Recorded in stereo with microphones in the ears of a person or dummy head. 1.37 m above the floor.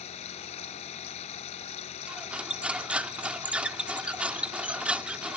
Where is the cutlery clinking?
10° right (ahead or behind).